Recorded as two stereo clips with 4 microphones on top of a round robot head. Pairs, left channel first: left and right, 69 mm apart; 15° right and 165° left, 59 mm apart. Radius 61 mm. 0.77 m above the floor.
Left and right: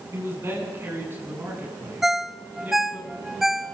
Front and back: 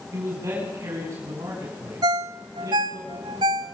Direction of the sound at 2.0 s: 175° right.